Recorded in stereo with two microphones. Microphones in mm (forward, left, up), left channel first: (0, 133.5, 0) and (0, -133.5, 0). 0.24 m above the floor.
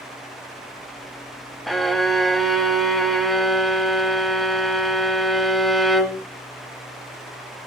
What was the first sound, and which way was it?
A violin, centre (ahead or behind).